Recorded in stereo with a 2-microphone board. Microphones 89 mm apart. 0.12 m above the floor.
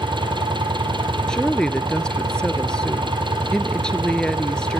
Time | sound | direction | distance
0.0 | an engine running | 60° right (ahead or behind) | 3.5 m
1.3 | a woman speaking | 10° left (ahead or behind) | 1.6 m